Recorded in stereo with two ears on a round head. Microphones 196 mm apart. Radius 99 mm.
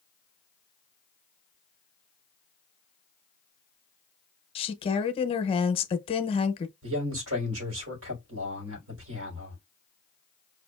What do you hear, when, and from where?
4.5 s a woman speaking: 25° left (ahead or behind), 0.6 m
6.8 s a man speaking: 75° right (ahead or behind), 4 m